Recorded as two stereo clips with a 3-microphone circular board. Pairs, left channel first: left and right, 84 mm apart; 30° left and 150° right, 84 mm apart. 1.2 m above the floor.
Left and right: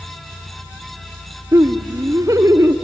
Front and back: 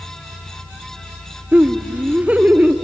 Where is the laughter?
85° right, 0.6 m.